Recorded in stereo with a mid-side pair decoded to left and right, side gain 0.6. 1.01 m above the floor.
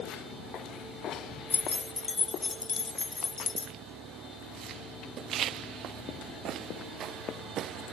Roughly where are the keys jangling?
Ahead.